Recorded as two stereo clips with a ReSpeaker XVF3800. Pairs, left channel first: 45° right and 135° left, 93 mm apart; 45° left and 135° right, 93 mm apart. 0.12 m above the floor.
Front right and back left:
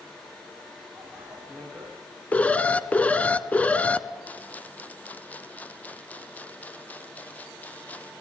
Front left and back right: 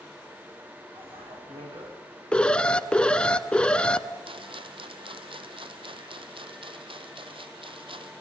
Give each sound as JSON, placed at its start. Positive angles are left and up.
{"t": 0.9, "sound": "a bicycle bell", "azimuth_deg": -140, "distance_m": 9.5}
{"t": 2.3, "sound": "an alarm", "azimuth_deg": -10, "distance_m": 0.8}
{"t": 4.2, "sound": "a rattle", "azimuth_deg": -120, "distance_m": 0.9}